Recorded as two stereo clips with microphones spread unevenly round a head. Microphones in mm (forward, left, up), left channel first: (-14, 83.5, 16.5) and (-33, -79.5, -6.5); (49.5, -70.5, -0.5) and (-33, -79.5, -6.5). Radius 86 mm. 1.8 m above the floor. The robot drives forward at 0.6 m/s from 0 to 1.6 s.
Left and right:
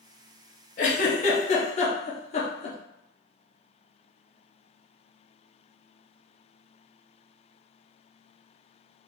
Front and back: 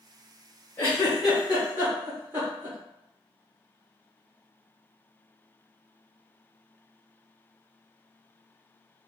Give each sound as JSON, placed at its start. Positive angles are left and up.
{"t": 0.8, "sound": "a giggle", "azimuth_deg": 70, "distance_m": 0.8}